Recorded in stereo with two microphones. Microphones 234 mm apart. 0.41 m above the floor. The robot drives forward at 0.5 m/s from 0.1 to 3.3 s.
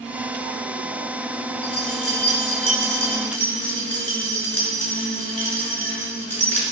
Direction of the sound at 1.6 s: 70° left (ahead or behind).